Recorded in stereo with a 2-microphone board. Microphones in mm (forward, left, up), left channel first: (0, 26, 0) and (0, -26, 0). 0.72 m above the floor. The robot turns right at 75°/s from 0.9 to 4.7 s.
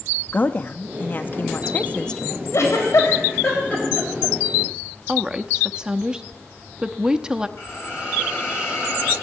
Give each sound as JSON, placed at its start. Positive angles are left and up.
{"t": 0.3, "sound": "a woman speaking", "azimuth_deg": 65, "distance_m": 0.8}
{"t": 2.5, "sound": "a giggle", "side_deg": 60, "distance_m": 4.0}
{"t": 5.1, "sound": "a woman speaking", "side_deg": -15, "distance_m": 0.7}
{"t": 7.6, "sound": "a hiss", "side_deg": 55, "distance_m": 7.0}